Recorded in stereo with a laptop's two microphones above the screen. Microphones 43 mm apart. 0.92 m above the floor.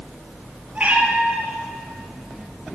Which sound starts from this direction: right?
A cat meowing, at 0.8 s.